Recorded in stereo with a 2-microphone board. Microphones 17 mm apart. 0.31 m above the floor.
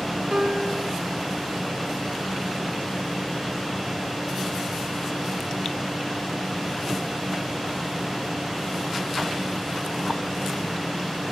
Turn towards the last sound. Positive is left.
turn(degrees=-45)  # may be behind; listen again after turning